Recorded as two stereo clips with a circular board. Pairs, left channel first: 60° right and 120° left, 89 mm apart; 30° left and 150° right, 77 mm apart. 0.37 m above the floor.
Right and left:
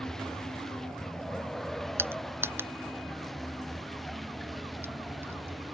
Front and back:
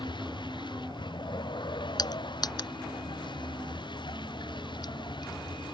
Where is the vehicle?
25° left; by 5.8 s 30° left.